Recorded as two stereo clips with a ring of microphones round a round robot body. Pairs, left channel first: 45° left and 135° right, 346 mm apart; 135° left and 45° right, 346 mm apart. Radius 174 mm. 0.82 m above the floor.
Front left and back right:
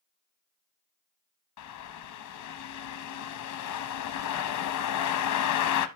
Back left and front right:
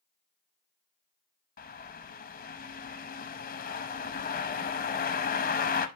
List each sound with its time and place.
1.6 s a bird: 75° left, 0.7 m